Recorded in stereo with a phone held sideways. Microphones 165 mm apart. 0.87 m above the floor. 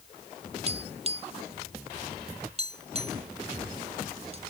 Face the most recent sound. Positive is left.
turn(degrees=-40)  # may be behind; listen again after turning